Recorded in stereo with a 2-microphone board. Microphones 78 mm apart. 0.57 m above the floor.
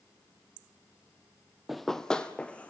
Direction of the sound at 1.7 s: Centre (ahead or behind).